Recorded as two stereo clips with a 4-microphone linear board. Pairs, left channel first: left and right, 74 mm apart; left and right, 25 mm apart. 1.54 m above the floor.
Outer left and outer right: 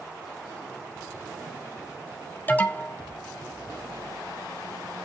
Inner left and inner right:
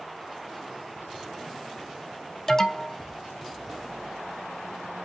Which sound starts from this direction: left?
An alarm, at 2.5 s.